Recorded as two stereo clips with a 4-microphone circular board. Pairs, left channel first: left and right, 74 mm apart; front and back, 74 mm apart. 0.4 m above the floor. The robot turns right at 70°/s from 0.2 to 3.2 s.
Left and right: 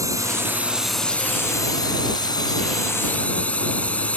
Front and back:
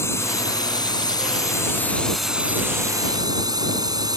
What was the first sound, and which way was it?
A drone, 50° right.